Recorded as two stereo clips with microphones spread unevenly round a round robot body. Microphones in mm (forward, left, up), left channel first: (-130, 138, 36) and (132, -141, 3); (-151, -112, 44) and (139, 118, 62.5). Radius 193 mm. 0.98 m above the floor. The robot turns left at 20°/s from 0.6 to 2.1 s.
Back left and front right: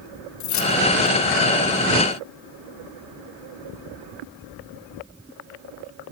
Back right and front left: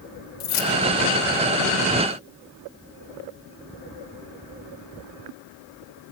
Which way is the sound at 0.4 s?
Straight behind.